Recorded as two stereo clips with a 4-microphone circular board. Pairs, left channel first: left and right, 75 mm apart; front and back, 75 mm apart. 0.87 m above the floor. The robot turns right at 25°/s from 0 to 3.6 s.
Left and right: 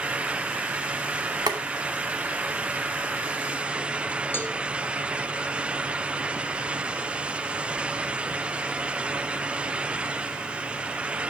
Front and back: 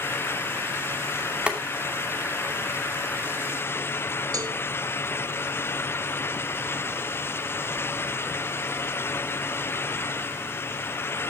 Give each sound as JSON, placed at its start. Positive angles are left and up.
{"t": 1.5, "sound": "boiling", "azimuth_deg": -105, "distance_m": 2.5}
{"t": 4.3, "sound": "a cowbell", "azimuth_deg": 150, "distance_m": 1.7}